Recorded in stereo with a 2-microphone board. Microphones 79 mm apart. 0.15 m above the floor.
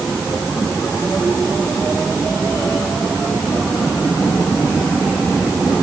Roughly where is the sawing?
No sawing in this recording.